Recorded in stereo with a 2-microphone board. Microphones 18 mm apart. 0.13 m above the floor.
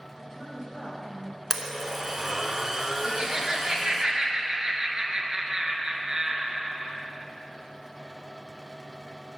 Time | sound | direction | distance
0.2 | a woman speaking | 30° left (ahead or behind) | 3 m
1.5 | a blender | 25° right (ahead or behind) | 0.8 m
3.0 | laughter | 35° right (ahead or behind) | 1.5 m